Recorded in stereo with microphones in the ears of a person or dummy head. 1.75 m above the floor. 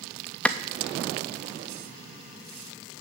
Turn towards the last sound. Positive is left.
turn(degrees=5)  # may be behind; listen again after turning